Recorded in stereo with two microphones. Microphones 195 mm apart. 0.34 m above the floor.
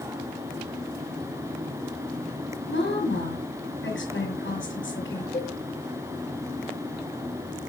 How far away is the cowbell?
About 1.1 m.